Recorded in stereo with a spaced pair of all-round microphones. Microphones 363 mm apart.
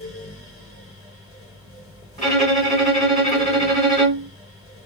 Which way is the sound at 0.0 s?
35° left (ahead or behind).